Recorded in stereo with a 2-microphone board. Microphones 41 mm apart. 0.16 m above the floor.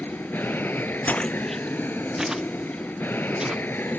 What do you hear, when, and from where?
0.0 s an aircraft: 55° left (ahead or behind)
1.1 s footsteps: 40° left (ahead or behind); by 3.6 s 20° right (ahead or behind)